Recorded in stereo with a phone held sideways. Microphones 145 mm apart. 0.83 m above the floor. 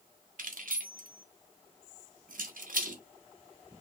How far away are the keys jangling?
About 1.0 m.